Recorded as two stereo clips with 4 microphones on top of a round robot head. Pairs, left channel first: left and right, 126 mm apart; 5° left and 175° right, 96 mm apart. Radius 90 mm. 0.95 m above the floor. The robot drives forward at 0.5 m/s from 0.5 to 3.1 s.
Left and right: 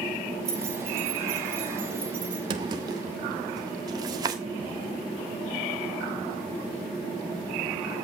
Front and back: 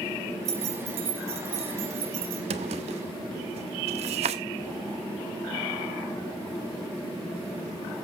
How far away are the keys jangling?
About 3 m.